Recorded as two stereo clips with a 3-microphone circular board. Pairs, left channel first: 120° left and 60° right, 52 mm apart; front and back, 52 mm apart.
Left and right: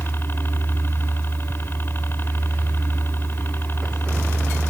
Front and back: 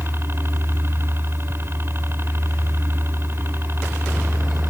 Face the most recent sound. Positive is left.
turn(degrees=155)